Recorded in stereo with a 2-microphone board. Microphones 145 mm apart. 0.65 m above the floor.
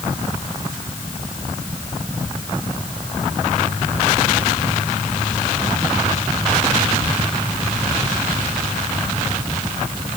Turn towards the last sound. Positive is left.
No sound to turn to.